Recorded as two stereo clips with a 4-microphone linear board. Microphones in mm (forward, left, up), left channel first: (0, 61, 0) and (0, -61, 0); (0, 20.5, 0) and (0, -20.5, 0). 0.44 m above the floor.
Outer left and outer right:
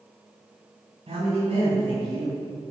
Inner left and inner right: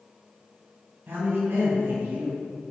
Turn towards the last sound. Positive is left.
turn(degrees=-60)  # may be behind; listen again after turning